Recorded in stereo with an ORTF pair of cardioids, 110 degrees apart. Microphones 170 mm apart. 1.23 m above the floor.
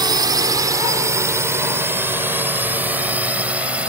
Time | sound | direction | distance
0.0 | a drone | 25° right | ?